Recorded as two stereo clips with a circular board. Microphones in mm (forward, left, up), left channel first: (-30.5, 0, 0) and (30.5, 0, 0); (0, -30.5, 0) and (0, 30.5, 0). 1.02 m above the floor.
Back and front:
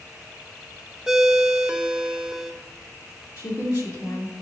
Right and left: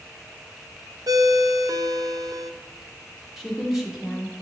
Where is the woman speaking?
175° left, 2 m.